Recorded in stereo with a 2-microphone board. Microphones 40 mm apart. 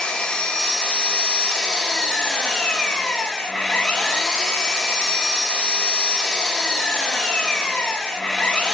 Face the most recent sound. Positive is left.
turn(degrees=15)  # may be behind; listen again after turning